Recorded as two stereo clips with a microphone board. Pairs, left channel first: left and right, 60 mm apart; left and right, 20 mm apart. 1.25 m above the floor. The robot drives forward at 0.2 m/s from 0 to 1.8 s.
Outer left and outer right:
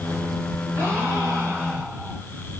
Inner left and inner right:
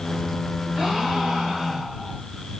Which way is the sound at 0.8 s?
60° right (ahead or behind).